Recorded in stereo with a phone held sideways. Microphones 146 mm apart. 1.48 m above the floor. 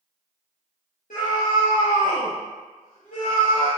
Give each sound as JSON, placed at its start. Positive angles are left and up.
{"t": 1.1, "sound": "a scream", "side_deg": 60, "distance_m": 1.0}